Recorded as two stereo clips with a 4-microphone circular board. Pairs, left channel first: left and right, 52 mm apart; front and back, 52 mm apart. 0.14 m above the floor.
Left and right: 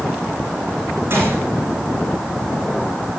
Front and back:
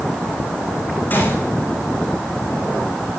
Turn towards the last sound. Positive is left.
turn(degrees=-50)